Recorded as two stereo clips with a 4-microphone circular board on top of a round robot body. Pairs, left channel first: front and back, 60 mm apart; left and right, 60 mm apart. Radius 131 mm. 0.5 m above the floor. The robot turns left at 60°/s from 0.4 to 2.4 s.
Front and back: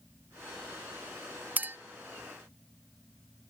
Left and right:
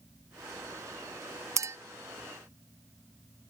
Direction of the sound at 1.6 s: 120° right.